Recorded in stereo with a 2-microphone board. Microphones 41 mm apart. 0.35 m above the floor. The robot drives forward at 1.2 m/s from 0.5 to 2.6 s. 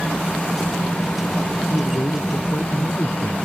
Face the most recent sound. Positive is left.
turn(degrees=70)  # may be behind; listen again after turning